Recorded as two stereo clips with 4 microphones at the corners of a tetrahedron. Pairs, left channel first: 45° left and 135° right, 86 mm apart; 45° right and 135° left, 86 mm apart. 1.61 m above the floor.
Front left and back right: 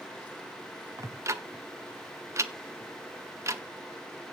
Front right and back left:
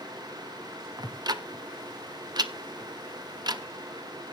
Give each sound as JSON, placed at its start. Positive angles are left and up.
{"t": 1.0, "sound": "ticking", "azimuth_deg": 170, "distance_m": 0.8}